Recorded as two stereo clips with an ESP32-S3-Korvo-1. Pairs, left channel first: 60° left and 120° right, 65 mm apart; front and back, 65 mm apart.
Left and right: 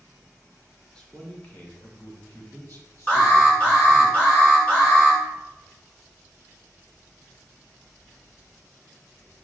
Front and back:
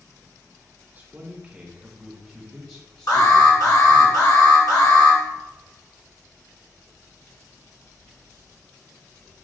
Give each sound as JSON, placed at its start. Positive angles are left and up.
{"t": 0.9, "sound": "a man speaking", "azimuth_deg": 130, "distance_m": 1.5}
{"t": 3.1, "sound": "an alarm", "azimuth_deg": -10, "distance_m": 1.8}